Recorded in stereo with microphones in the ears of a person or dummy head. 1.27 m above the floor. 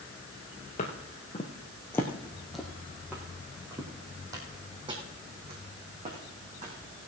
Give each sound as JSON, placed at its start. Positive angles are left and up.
{"t": 0.8, "sound": "footsteps", "side_deg": 35, "distance_m": 1.5}